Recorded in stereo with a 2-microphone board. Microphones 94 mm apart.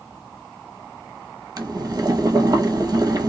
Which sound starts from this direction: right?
Boiling, at 1.6 s.